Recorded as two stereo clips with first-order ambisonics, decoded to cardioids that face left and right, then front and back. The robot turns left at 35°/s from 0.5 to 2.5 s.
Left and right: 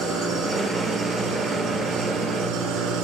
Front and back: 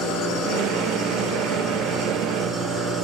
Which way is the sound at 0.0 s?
10° right.